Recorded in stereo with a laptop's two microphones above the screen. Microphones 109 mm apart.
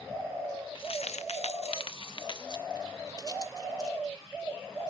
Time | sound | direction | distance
0.8 | keys jangling | 45° left (ahead or behind) | 0.6 m